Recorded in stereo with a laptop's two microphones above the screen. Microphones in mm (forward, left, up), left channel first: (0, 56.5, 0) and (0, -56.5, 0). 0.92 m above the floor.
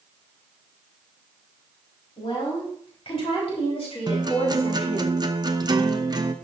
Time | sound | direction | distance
2.2 | a woman speaking | 50° left (ahead or behind) | 4 m
4.1 | a guitar | 35° right (ahead or behind) | 0.7 m